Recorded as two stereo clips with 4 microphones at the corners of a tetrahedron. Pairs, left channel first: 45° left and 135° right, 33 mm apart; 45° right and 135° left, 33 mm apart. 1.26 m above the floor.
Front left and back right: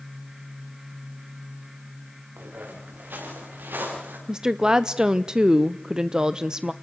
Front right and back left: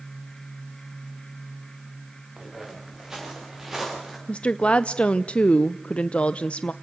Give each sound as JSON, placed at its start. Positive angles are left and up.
{"t": 2.4, "sound": "footsteps", "azimuth_deg": -150, "distance_m": 7.0}
{"t": 4.3, "sound": "a woman speaking", "azimuth_deg": -75, "distance_m": 0.5}